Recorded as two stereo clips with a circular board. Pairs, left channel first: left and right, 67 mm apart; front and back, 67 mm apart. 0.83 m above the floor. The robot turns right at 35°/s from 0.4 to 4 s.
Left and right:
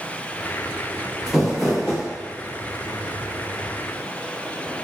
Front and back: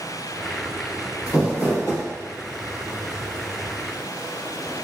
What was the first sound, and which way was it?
Crumpling, 10° right.